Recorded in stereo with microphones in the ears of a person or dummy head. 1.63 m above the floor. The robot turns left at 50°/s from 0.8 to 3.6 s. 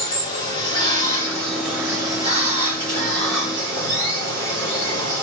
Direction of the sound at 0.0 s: 45° left.